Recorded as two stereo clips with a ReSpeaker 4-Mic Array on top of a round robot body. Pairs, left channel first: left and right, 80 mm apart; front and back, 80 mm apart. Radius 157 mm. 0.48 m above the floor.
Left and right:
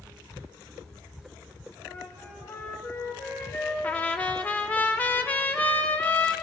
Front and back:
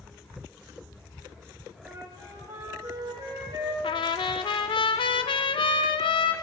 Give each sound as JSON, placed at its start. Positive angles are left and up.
{"t": 1.8, "sound": "a flute", "azimuth_deg": 150, "distance_m": 2.5}
{"t": 3.8, "sound": "a trumpet", "azimuth_deg": 15, "distance_m": 0.5}